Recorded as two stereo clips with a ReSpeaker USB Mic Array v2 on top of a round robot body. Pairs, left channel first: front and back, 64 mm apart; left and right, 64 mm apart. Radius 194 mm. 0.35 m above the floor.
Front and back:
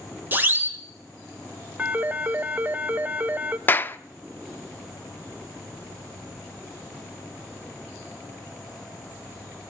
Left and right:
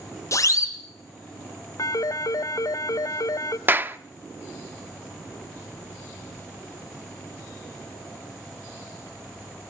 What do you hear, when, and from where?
0.3 s a siren: 125° left, 3.5 m
1.8 s a phone ringing: 115° left, 1.2 m
3.7 s a clap: 45° right, 1.1 m